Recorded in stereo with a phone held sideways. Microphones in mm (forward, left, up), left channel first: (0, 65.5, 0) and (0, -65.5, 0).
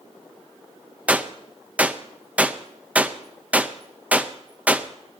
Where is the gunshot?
10° right (ahead or behind), 0.6 m.